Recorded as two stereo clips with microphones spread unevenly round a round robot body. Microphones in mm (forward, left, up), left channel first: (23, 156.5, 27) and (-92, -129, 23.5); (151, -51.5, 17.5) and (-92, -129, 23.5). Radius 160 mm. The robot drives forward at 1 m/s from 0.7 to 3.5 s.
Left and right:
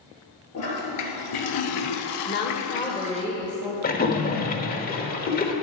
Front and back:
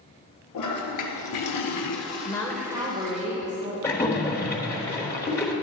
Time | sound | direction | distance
0.5 | a toilet flushing | 25° left | 1.8 m
2.2 | a woman speaking | 80° left | 1.0 m
3.8 | a splash | 85° left | 1.2 m